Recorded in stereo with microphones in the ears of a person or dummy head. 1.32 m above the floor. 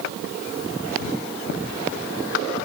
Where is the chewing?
No chewing in this recording.